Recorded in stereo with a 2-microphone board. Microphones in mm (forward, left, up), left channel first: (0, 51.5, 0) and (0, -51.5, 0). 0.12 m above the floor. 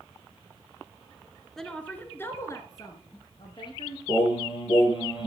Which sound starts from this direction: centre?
A woman speaking, at 1.6 s.